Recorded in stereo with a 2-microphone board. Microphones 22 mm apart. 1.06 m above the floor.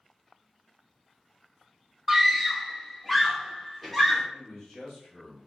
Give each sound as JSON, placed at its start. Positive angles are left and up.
{"t": 2.1, "sound": "a scream", "side_deg": -10, "distance_m": 0.7}
{"t": 4.3, "sound": "a man speaking", "side_deg": 25, "distance_m": 2.5}